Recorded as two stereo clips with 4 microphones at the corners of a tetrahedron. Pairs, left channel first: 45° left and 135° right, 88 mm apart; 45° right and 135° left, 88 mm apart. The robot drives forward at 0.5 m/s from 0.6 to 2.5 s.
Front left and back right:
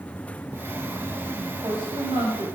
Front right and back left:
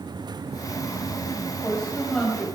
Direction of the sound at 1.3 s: 120° right.